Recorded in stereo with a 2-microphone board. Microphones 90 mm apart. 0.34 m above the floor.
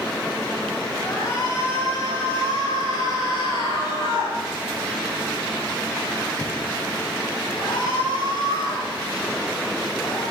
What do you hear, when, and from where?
1.0 s a shout: 40° left (ahead or behind), 4 m; by 10.2 s 60° left (ahead or behind), 12 m